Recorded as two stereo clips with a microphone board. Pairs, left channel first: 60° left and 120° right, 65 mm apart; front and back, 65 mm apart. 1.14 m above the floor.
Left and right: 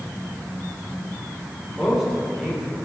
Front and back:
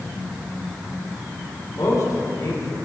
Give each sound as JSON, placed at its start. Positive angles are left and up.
{"t": 1.7, "sound": "a man speaking", "azimuth_deg": -35, "distance_m": 3.0}